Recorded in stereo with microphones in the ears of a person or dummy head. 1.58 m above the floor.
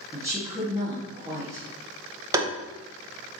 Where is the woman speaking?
20° right (ahead or behind), 1.5 m.